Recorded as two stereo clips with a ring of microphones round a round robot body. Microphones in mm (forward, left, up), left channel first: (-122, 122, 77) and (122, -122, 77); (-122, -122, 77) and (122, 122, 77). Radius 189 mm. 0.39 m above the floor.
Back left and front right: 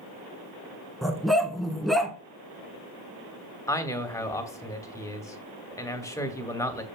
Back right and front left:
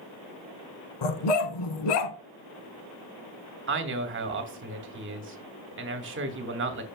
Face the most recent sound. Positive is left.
turn(degrees=60)